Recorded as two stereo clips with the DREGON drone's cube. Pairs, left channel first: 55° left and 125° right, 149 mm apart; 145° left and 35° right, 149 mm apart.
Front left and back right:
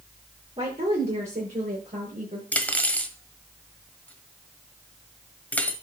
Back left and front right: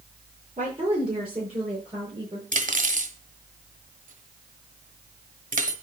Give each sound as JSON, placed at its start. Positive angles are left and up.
{"t": 0.6, "sound": "a woman speaking", "azimuth_deg": -80, "distance_m": 7.5}
{"t": 2.5, "sound": "cutlery clinking", "azimuth_deg": -25, "distance_m": 1.2}